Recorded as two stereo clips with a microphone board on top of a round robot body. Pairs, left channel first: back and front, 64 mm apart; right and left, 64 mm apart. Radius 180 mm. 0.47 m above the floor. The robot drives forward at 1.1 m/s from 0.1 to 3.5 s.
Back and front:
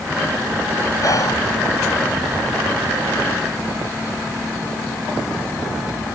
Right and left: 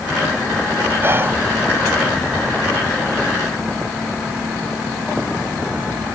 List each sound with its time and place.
1.0 s whispering: 145° left; by 1.4 s 150° left